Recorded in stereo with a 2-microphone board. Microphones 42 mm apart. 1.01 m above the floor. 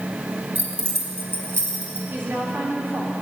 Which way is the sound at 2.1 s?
65° right (ahead or behind).